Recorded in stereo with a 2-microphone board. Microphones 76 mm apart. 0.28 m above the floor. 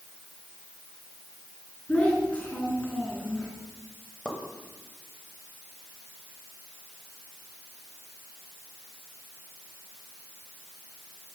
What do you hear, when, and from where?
1.9 s a child speaking: 20° left (ahead or behind), 2.5 m
4.2 s a pop: 15° left (ahead or behind), 1.6 m